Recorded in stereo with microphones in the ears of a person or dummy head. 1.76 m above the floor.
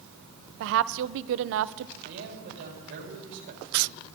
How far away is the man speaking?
About 4 m.